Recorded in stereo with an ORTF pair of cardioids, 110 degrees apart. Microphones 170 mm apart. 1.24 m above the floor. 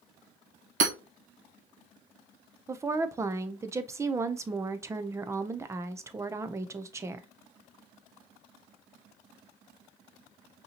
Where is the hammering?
55° right, 1.5 m.